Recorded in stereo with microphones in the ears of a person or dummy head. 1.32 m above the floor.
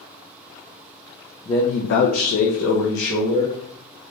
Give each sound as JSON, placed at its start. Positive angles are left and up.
{"t": 1.4, "sound": "a man speaking", "side_deg": 20, "distance_m": 0.6}